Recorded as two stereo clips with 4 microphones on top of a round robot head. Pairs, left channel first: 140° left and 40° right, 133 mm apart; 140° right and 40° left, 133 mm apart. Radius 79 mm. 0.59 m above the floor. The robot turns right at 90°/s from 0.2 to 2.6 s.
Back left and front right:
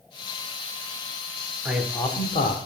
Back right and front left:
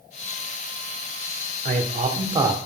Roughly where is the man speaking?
Ahead left.